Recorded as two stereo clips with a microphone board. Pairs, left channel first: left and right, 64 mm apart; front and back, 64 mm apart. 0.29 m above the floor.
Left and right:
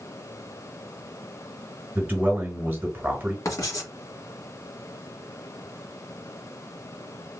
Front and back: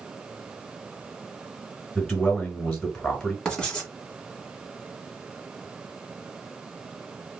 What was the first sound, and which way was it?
A man speaking, 75° right.